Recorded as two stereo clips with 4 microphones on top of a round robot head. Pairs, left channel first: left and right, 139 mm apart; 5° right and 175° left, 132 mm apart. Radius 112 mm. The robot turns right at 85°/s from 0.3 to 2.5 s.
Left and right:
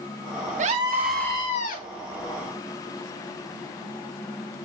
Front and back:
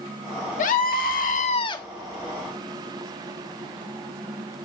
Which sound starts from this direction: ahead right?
A scream, at 0.6 s.